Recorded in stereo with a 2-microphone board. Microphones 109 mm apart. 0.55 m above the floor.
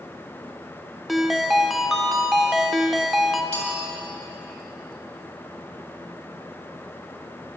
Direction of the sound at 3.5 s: 75° left (ahead or behind).